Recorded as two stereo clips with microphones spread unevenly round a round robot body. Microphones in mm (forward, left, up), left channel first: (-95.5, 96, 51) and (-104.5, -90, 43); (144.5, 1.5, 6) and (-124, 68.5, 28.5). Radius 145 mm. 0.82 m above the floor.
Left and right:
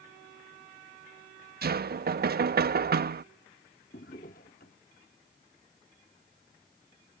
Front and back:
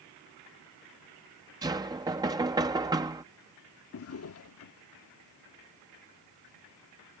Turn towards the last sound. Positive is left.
turn(degrees=25)